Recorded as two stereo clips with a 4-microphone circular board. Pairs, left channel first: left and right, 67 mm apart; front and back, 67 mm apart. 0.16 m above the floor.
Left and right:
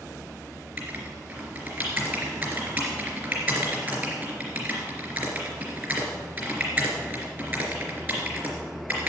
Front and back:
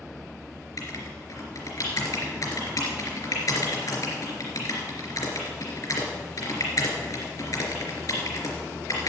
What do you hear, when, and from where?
0.8 s writing: 30° right, 3.5 m